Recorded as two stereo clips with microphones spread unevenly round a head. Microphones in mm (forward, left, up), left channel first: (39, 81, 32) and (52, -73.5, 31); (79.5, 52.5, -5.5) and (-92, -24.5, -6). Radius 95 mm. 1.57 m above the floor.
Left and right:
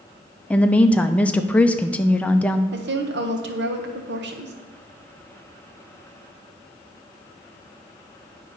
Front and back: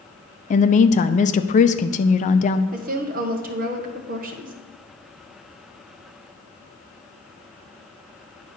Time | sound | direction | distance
0.5 | a woman speaking | 20° left | 0.5 m
2.7 | a woman speaking | 105° right | 1.1 m